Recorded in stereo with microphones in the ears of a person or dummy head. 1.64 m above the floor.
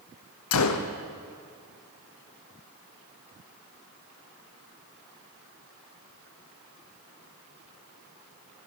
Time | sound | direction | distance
0.5 | a gunshot | 80° left | 1.0 m